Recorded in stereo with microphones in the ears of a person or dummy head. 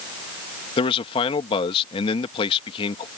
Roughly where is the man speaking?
Left.